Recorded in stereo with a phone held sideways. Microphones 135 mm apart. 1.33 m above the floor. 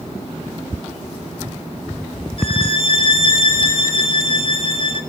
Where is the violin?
40° left (ahead or behind), 2 m.